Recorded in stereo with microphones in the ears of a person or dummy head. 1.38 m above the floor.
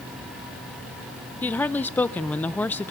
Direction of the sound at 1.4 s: 10° left (ahead or behind).